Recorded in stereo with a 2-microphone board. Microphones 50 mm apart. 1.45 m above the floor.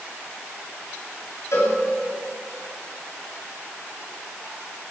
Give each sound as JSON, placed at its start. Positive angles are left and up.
{"t": 1.5, "sound": "a cowbell", "side_deg": 75, "distance_m": 9.5}